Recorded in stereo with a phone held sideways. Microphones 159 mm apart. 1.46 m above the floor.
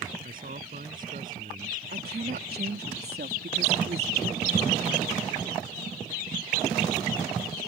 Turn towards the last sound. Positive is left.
turn(degrees=-85)